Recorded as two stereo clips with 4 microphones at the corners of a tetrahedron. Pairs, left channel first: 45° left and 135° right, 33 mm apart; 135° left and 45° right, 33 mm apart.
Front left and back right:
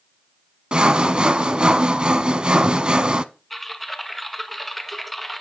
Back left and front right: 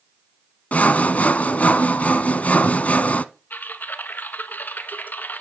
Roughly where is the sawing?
Behind.